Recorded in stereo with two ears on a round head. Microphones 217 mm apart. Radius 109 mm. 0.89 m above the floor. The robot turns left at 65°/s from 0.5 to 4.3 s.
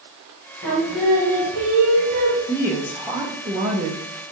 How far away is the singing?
About 3.5 m.